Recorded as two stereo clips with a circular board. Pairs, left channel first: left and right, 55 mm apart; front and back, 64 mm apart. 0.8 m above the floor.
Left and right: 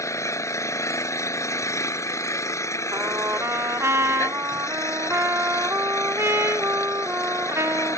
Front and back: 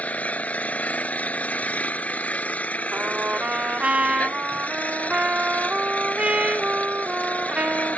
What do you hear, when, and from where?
0.0 s an engine running: 65° left
2.9 s a trumpet: 115° right